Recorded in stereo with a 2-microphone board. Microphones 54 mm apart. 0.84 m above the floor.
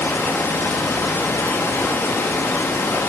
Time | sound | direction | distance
0.0 | running water | 55° left (ahead or behind) | 1.0 m